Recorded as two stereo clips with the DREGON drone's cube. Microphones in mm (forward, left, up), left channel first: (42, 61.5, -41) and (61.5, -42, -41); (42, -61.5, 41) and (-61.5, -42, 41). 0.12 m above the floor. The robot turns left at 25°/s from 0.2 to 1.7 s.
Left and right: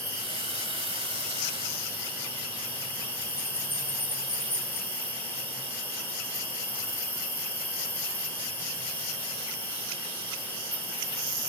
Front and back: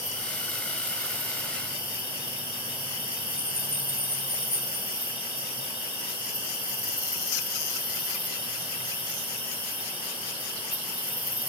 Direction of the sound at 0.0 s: 150° left.